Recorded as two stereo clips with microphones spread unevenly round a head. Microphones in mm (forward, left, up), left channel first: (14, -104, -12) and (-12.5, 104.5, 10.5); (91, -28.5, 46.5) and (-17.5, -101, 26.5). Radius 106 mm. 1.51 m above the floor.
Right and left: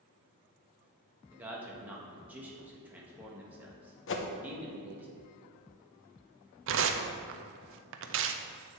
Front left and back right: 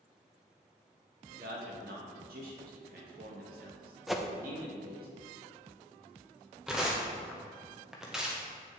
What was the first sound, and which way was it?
A man speaking, straight behind.